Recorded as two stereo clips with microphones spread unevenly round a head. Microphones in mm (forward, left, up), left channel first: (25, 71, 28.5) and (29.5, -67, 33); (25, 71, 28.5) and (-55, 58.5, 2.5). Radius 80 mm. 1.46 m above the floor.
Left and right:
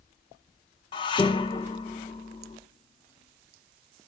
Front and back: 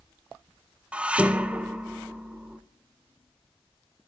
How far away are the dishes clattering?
About 0.6 m.